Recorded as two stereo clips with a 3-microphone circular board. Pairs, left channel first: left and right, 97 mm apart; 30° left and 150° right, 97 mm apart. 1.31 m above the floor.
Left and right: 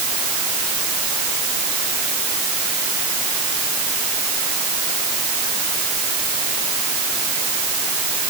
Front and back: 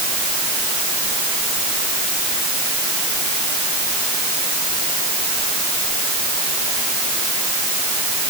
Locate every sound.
Only background noise.